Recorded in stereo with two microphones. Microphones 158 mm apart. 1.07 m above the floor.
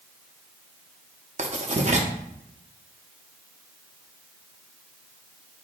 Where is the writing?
50° right (ahead or behind), 0.6 m.